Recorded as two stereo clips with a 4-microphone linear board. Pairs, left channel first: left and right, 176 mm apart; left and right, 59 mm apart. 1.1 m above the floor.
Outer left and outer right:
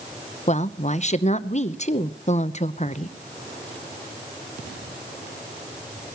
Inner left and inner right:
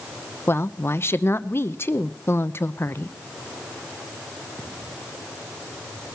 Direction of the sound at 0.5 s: 40° left (ahead or behind).